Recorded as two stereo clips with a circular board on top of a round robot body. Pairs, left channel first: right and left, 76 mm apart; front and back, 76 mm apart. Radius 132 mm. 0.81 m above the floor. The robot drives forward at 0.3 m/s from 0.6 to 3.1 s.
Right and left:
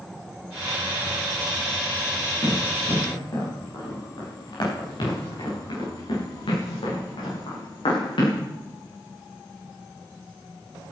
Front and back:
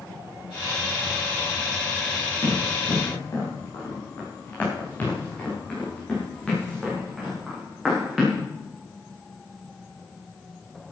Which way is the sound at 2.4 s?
45° right.